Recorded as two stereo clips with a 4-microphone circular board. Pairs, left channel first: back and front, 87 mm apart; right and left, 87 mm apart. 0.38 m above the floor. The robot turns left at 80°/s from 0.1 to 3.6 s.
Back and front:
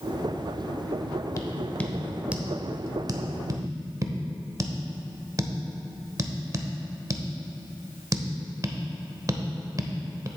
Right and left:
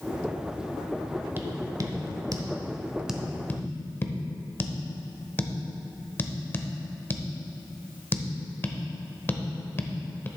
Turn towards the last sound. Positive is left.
turn(degrees=-35)